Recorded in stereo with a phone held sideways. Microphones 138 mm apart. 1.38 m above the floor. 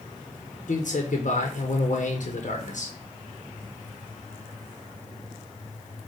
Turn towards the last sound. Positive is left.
turn(degrees=65)  # may be behind; listen again after turning